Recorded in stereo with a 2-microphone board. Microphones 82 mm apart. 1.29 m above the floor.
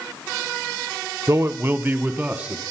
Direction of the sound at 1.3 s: 35° right (ahead or behind).